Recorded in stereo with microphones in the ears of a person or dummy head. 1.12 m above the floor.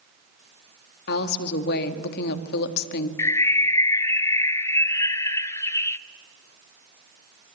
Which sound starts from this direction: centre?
A bird, at 3.2 s.